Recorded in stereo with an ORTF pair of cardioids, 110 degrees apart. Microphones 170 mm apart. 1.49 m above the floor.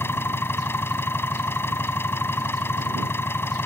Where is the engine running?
15° left.